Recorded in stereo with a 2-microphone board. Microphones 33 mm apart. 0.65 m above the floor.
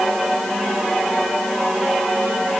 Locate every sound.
Only background noise.